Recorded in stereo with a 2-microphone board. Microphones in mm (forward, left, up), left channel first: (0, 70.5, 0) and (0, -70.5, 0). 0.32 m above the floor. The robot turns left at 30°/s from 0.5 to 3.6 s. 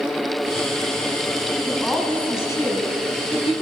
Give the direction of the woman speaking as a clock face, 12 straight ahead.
6 o'clock.